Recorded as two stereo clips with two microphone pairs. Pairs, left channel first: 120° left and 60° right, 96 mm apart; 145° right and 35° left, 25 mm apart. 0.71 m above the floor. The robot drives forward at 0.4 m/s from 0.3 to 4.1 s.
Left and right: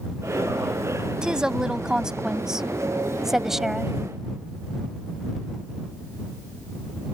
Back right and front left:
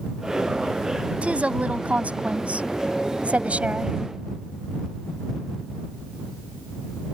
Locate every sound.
1.2 s a woman speaking: 20° left; by 3.9 s 30° left